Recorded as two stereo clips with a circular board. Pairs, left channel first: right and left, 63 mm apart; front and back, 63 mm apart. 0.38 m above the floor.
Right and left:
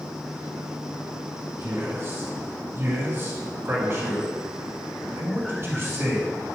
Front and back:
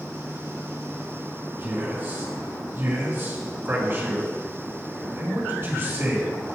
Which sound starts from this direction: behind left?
A man speaking, at 1.6 s.